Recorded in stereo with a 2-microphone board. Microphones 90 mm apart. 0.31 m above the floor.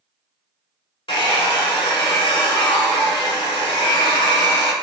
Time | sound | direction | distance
1.1 | a hair dryer | 90° left | 0.7 m